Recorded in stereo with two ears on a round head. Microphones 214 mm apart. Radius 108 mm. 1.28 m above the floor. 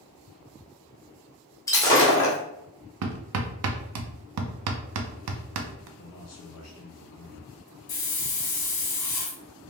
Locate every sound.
1.7 s breaking glass: 15° left (ahead or behind), 1.2 m
3.0 s hammering: 70° right (ahead or behind), 0.6 m
6.0 s a man speaking: 65° left (ahead or behind), 1.8 m
7.9 s a hiss: 75° left (ahead or behind), 1.5 m